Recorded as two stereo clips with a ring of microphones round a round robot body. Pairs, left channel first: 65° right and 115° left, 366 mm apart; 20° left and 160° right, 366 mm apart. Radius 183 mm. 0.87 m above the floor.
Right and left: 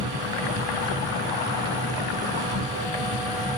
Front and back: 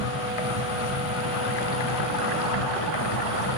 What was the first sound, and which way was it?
An insect, 40° left.